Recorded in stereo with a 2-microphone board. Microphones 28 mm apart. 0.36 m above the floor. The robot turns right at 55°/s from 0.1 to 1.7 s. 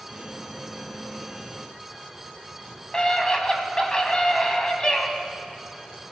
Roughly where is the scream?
Left.